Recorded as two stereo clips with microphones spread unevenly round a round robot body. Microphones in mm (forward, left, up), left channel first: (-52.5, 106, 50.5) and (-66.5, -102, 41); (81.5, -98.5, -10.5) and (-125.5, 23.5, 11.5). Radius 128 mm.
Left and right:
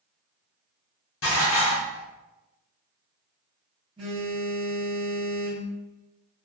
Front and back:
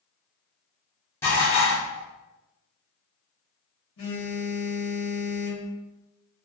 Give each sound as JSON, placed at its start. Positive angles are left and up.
{"t": 1.2, "sound": "dishes clattering", "azimuth_deg": 50, "distance_m": 1.0}
{"t": 4.0, "sound": "a phone buzzing", "azimuth_deg": -25, "distance_m": 1.2}